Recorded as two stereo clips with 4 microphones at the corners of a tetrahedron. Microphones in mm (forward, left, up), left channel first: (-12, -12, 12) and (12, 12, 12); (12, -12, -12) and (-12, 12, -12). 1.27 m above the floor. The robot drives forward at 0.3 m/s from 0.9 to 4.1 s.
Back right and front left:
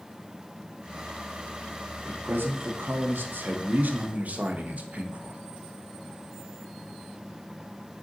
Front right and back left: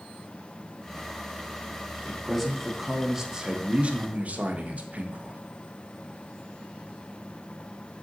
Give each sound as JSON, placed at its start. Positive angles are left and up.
{"t": 2.0, "sound": "a man speaking", "azimuth_deg": 40, "distance_m": 0.8}